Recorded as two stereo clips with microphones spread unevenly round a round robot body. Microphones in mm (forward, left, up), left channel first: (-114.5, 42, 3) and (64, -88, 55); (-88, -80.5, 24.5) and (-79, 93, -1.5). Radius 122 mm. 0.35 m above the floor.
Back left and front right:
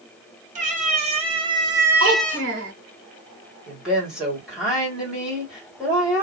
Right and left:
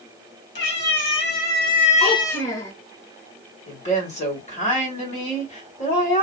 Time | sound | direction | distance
0.6 | a cat meowing | 100° right | 1.5 m
2.0 | a child speaking | 40° right | 1.3 m
3.7 | a woman speaking | 135° right | 1.9 m